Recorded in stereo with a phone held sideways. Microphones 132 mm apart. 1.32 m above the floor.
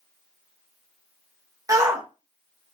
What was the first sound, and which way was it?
A shout, 25° right (ahead or behind).